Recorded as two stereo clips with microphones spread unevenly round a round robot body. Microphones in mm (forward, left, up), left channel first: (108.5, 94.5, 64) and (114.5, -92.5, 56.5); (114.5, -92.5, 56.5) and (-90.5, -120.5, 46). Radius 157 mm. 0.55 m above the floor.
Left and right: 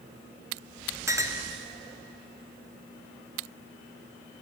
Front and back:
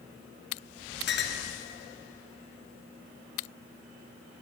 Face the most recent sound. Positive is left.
turn(degrees=-15)